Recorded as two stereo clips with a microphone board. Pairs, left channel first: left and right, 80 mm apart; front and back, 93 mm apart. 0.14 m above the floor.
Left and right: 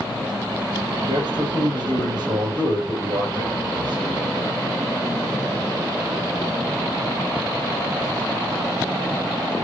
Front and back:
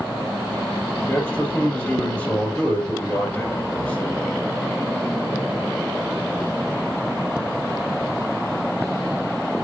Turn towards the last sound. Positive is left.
turn(degrees=-75)